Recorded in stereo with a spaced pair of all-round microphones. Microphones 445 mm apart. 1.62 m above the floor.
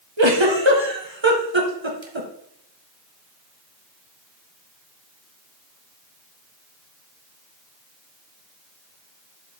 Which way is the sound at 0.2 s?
80° right.